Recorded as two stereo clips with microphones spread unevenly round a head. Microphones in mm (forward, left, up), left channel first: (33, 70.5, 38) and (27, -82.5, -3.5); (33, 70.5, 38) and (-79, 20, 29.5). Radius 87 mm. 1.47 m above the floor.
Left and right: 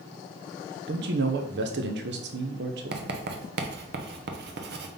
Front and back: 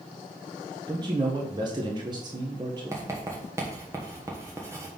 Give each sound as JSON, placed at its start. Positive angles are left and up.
{"t": 0.9, "sound": "a man speaking", "azimuth_deg": -90, "distance_m": 0.8}
{"t": 2.9, "sound": "writing", "azimuth_deg": -85, "distance_m": 1.0}